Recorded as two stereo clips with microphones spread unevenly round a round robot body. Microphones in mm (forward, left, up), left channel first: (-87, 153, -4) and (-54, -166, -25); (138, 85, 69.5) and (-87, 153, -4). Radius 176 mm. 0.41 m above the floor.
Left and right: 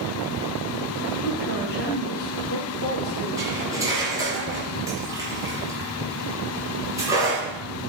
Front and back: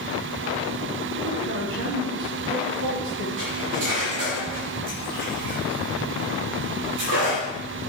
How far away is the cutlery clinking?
About 4 m.